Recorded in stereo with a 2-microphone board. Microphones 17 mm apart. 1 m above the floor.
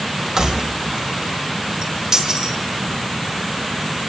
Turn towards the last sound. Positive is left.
turn(degrees=-35)  # may be behind; listen again after turning